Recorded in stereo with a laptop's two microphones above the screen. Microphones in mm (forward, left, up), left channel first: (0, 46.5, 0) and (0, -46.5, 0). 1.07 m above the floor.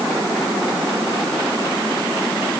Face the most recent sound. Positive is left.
No sound to turn to.